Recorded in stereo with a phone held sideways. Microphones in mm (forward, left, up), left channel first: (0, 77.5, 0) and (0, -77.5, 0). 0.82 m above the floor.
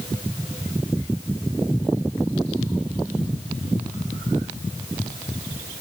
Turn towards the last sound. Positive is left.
No sound to turn to.